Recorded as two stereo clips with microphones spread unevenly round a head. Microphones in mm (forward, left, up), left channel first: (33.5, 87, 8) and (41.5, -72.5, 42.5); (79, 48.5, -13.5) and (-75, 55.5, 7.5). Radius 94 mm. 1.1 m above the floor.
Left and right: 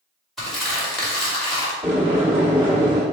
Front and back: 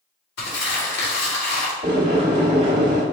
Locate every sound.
0.4 s crumpling: 5° left, 1.8 m
1.8 s boiling: 140° right, 1.1 m